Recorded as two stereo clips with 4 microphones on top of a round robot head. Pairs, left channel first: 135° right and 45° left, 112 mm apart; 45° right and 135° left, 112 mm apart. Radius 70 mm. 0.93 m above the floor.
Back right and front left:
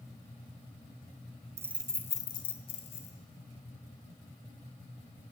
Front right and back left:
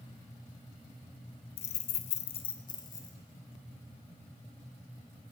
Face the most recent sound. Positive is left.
turn(degrees=-105)